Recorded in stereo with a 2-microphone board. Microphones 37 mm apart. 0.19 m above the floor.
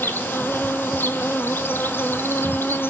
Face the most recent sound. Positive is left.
turn(degrees=75)  # may be behind; listen again after turning